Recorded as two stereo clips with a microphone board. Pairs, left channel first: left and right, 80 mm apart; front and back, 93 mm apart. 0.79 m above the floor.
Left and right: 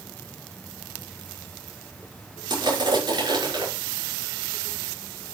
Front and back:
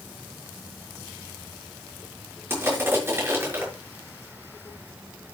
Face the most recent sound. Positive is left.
turn(degrees=-115)